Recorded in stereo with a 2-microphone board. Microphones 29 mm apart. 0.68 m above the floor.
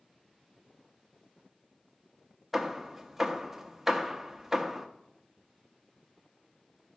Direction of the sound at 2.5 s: 10° right (ahead or behind).